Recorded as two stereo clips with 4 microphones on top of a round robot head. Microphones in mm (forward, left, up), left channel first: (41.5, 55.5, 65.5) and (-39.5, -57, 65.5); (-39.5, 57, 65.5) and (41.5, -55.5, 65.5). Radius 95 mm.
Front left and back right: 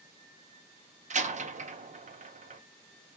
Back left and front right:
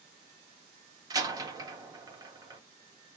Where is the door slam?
115° right, 1.1 m.